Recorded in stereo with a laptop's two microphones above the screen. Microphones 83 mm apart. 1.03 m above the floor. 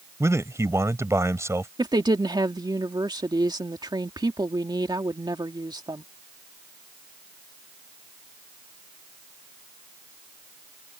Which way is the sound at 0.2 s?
35° right (ahead or behind).